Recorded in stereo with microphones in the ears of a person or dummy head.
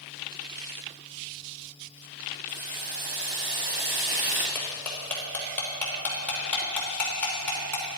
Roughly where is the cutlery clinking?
Centre.